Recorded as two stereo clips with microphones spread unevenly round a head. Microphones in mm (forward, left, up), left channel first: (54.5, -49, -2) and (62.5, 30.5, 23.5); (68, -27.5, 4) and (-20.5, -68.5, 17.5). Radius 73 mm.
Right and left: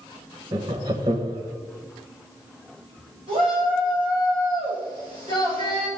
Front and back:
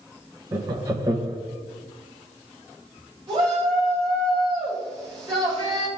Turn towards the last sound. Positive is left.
turn(degrees=140)